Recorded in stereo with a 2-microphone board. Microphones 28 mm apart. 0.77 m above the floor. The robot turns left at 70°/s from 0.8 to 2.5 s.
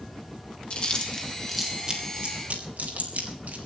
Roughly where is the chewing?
Left.